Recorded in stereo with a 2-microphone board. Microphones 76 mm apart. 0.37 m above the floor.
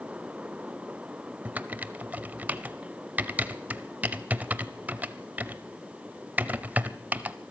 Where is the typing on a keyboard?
20° right (ahead or behind), 0.5 m.